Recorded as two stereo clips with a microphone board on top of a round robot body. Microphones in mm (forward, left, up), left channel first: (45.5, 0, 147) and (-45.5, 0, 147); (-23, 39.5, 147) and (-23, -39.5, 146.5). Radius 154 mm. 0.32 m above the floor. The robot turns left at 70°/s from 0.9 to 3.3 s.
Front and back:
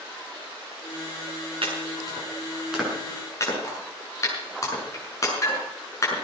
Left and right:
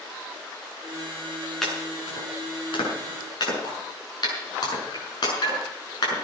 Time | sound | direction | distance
1.6 | chopping | 175° left | 6.5 m